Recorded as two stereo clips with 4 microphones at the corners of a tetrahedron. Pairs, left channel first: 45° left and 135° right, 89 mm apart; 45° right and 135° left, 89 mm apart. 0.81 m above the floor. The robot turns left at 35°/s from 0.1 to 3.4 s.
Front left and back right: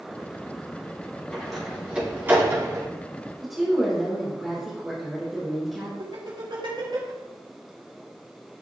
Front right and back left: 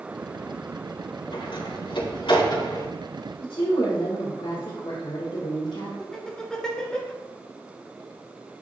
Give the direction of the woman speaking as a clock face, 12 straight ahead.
1 o'clock.